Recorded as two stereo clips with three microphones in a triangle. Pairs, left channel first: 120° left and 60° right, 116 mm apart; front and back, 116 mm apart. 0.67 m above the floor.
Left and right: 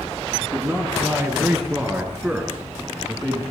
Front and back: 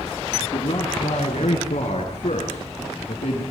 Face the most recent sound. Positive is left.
turn(degrees=25)